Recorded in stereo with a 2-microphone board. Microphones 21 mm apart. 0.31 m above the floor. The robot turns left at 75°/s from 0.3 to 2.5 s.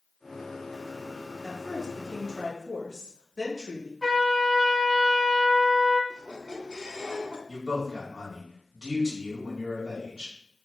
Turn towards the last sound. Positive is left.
turn(degrees=-25)  # may be behind; listen again after turning